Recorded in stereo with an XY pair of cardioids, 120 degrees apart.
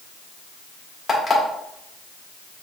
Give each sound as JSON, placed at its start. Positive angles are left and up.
{"t": 1.1, "sound": "an alarm clock", "azimuth_deg": 30, "distance_m": 1.7}